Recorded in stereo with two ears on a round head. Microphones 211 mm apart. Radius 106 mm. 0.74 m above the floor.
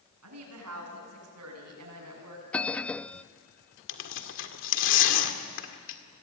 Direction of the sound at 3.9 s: 60° left (ahead or behind).